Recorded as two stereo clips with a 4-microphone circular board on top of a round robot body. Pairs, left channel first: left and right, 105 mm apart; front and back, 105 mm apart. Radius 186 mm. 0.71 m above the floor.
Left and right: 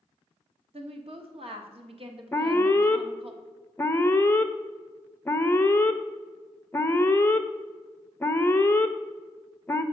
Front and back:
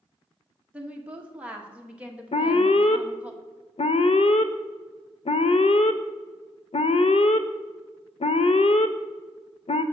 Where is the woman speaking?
105° right, 1.4 m.